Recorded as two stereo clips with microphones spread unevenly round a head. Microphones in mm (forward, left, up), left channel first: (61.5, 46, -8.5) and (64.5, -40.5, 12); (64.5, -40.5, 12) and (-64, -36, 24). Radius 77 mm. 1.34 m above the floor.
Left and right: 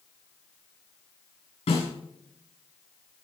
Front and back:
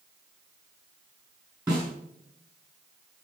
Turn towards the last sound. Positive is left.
turn(degrees=95)